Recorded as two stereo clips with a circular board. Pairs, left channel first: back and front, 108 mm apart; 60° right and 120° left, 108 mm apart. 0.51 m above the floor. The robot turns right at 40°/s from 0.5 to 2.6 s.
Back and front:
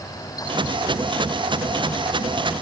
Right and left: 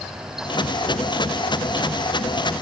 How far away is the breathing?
No breathing in this recording.